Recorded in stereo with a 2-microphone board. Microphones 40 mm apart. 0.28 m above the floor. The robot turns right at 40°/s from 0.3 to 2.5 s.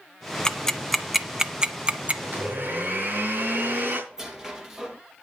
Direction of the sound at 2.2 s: 65° right (ahead or behind).